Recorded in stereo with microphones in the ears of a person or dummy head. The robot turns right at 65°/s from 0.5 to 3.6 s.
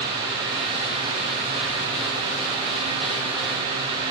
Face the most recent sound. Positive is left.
No sound to turn to.